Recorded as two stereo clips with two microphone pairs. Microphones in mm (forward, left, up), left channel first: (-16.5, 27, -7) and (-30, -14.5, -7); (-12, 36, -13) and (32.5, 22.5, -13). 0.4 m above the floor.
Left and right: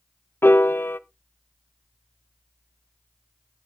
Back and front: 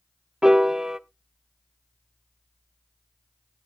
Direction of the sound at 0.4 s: 60° left.